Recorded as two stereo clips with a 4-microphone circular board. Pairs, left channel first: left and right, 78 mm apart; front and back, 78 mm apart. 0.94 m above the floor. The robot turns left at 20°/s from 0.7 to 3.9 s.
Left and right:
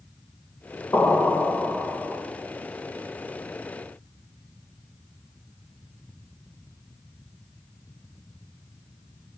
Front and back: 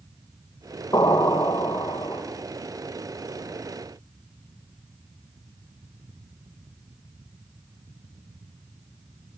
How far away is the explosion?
About 3 m.